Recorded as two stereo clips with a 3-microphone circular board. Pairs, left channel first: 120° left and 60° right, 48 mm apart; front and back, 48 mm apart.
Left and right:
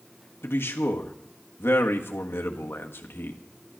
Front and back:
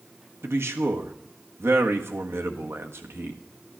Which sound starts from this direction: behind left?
A man speaking, at 0.4 s.